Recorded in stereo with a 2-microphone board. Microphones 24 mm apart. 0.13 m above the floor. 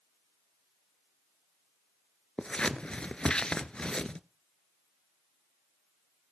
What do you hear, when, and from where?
2.4 s scissors: 40° left (ahead or behind), 0.6 m